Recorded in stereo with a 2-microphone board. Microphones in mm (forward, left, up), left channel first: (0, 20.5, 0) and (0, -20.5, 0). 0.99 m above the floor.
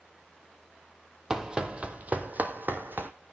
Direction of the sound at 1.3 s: 15° right (ahead or behind).